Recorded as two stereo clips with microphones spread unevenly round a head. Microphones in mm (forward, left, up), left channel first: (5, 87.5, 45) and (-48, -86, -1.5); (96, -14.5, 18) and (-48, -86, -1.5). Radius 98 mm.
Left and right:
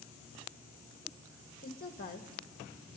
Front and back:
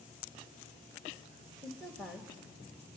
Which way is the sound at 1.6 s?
115° left.